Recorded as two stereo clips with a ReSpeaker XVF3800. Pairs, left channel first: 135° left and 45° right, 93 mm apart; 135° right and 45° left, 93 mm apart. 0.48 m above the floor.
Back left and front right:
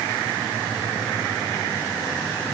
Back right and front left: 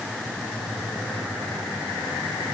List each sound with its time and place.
Only background noise.